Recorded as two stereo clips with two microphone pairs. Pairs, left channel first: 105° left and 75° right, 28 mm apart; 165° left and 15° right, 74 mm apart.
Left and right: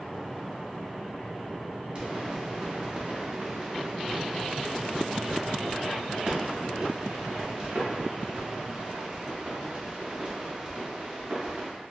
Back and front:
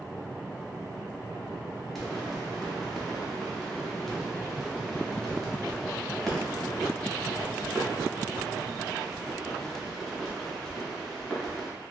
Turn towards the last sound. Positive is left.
turn(degrees=-110)